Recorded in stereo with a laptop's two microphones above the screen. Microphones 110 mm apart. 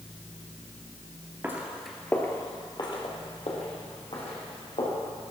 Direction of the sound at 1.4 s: 20° right (ahead or behind).